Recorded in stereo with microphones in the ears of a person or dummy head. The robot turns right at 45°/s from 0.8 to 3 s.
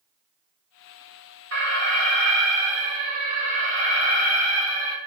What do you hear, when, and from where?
1.5 s an alarm: 105° right, 2.5 m; by 5.0 s 40° right, 2.5 m